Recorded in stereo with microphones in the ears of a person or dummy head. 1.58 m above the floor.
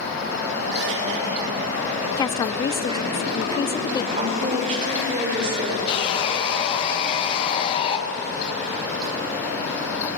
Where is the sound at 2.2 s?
20° left (ahead or behind), 0.7 m.